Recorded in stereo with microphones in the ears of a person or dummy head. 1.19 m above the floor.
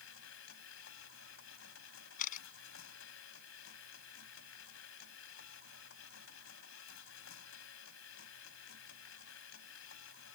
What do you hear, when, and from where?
0.0 s a machine running: 75° left (ahead or behind)
2.2 s a camera shutter: 45° left (ahead or behind)